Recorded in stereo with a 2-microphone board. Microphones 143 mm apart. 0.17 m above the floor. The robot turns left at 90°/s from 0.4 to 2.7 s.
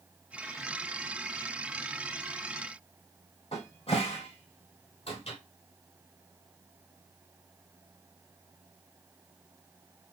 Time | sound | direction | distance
3.5 | a cupboard door | 40° left (ahead or behind) | 1.6 m